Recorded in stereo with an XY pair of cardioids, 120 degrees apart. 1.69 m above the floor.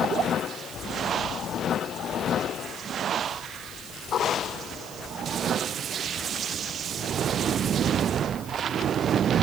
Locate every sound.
Only background noise.